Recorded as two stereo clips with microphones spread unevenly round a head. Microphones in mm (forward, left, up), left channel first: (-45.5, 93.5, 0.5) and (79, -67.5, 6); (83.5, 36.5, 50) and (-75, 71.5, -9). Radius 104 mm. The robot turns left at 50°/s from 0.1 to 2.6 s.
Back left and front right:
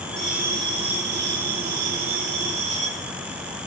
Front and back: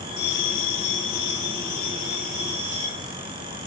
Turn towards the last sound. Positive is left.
turn(degrees=-110)